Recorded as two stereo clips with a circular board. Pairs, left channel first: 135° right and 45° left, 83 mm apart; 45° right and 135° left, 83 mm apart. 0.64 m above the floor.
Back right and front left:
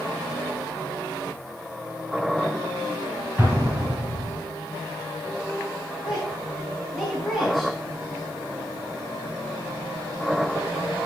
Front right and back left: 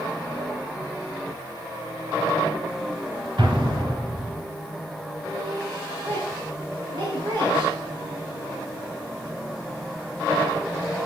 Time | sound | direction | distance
3.4 | an explosion | 110° left | 3 m
6.0 | a woman speaking | 145° left | 5 m